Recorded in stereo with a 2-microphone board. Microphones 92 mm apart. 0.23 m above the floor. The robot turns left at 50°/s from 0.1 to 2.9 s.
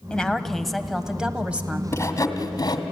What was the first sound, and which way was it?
A woman speaking, 10° left (ahead or behind).